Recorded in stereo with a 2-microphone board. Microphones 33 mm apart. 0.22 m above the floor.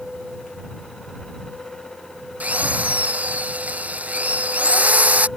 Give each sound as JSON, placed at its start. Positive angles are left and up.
{"t": 2.4, "sound": "a drill", "side_deg": -45}